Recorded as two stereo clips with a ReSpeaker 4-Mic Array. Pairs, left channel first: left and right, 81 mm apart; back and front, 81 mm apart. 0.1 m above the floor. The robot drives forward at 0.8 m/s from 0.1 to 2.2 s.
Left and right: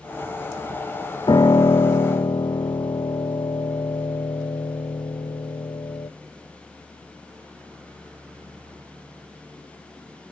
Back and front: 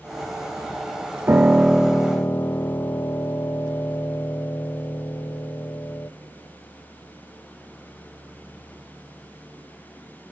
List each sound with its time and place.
1.3 s a piano: 60° left, 0.8 m; by 6.1 s 120° left, 0.8 m